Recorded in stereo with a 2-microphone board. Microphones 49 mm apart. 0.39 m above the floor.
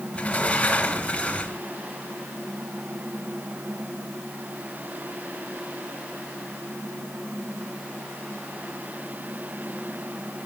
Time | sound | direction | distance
0.1 | a sliding door | 25° left (ahead or behind) | 1.4 m